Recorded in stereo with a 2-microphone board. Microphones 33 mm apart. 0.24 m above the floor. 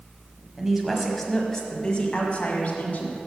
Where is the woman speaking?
15° right (ahead or behind), 1.3 m; by 3.2 s 45° left (ahead or behind), 2.0 m.